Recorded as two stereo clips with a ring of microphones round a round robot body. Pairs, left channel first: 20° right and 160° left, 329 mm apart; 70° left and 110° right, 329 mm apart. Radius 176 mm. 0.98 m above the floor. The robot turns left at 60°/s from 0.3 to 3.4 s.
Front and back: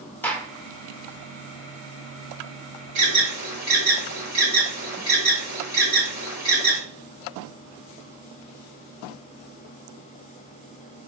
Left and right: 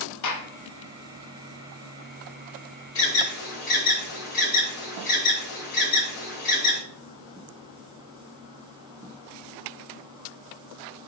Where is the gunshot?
60° left, 0.8 m; by 0.5 s 50° left, 0.8 m.